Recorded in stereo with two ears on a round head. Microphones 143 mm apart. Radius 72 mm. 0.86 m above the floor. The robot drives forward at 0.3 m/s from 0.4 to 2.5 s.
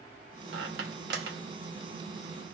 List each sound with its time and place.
0.5 s a squeak: 80° right, 1.3 m; by 2.5 s 60° right (ahead or behind), 1.5 m